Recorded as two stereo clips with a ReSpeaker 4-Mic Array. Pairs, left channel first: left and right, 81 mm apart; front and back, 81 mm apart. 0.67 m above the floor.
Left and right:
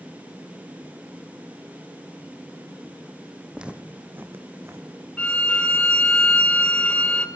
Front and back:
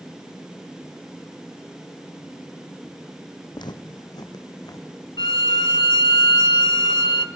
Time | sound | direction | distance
3.5 | footsteps | 10° right | 1.5 m
5.2 | a violin | 15° left | 1.6 m